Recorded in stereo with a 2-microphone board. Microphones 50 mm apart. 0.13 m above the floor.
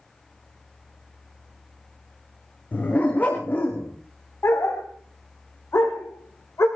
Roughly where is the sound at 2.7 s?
Left.